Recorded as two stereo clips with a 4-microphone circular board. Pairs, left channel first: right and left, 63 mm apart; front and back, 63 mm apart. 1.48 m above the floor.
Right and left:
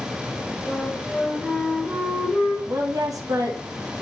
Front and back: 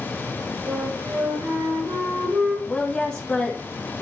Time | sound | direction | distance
0.7 | a flute | 165° right | 4.5 m
2.7 | a woman speaking | 70° left | 1.3 m